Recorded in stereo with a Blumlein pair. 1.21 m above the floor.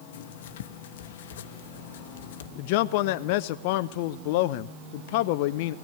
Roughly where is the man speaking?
Ahead left.